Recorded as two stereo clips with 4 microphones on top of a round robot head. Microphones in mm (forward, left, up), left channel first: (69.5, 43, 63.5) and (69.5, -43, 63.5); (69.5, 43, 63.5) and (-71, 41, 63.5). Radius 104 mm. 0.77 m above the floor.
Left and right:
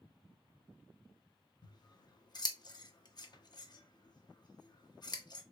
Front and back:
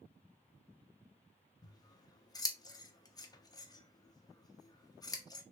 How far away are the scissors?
About 0.7 m.